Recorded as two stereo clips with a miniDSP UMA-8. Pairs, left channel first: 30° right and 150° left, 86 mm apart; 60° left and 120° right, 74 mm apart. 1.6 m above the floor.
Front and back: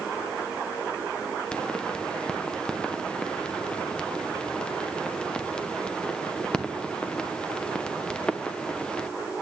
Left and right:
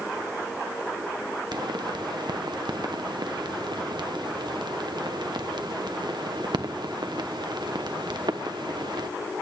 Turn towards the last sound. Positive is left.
turn(degrees=-110)